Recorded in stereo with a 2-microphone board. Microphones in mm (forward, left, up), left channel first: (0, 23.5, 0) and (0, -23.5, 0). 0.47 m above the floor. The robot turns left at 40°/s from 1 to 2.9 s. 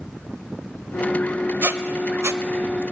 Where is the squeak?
60° right (ahead or behind), 0.5 m; by 2.8 s 70° right (ahead or behind), 0.5 m.